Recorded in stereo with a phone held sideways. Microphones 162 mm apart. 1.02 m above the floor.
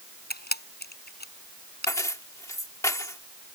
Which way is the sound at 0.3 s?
85° left.